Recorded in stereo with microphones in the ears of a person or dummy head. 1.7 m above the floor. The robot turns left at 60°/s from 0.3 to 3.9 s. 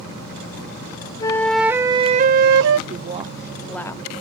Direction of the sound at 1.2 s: 20° left.